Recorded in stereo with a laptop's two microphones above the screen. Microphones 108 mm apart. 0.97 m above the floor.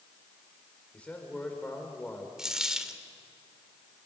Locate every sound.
0.9 s a man speaking: 10° left (ahead or behind), 3.5 m
2.4 s a dropped coin: 5° right (ahead or behind), 1.5 m